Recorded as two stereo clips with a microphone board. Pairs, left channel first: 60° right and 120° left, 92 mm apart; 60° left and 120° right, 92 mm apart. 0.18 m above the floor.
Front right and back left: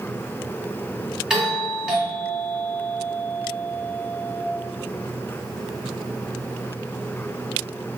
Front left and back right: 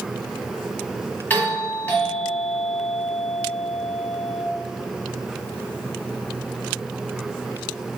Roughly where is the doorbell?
Ahead left.